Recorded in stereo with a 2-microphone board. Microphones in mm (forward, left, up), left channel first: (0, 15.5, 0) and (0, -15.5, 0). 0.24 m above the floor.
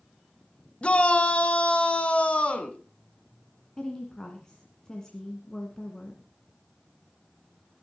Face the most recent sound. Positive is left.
turn(degrees=20)  # may be behind; listen again after turning